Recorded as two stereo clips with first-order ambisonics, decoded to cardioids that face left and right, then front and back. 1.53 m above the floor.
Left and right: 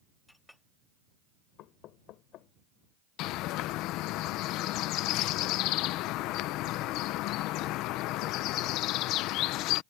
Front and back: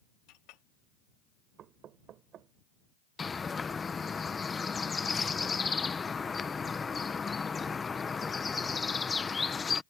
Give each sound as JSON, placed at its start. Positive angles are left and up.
{"t": 0.3, "sound": "a clink", "azimuth_deg": 5}
{"t": 1.6, "sound": "knocking", "azimuth_deg": 130}
{"t": 3.2, "sound": "a bird", "azimuth_deg": 70}